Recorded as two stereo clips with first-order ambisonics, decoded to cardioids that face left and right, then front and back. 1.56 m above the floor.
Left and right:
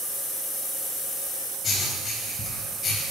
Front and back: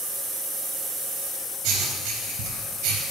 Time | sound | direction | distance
1.6 | writing | 155° left | 4 m